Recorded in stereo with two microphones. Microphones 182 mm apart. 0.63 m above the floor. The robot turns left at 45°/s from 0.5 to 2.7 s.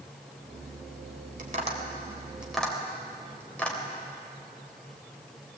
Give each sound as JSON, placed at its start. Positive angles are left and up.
{"t": 1.4, "sound": "tapping", "side_deg": -50, "distance_m": 3.0}